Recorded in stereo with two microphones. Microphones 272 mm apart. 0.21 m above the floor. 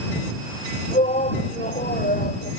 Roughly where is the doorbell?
I don't hear a doorbell.